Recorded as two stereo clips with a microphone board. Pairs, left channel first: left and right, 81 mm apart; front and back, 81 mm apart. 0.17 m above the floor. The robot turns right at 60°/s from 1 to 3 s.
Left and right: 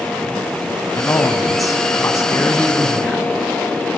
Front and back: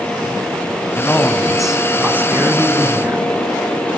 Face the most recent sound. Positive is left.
turn(degrees=175)